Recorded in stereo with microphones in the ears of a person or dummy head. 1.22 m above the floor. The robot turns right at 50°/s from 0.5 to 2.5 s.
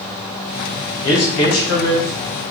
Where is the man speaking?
85° left, 1.3 m; by 2.1 s 135° left, 1.3 m.